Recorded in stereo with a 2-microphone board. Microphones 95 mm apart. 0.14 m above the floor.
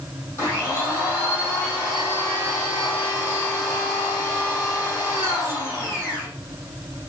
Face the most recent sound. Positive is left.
turn(degrees=30)  # may be behind; listen again after turning